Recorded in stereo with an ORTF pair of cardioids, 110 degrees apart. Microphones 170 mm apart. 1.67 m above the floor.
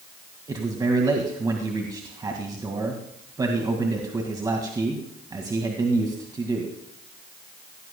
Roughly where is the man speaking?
Ahead right.